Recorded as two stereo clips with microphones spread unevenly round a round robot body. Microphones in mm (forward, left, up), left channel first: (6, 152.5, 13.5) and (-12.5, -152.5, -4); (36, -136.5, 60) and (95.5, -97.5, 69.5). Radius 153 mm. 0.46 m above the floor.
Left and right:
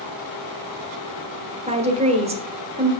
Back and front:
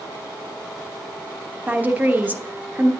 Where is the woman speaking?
35° right, 1.2 m.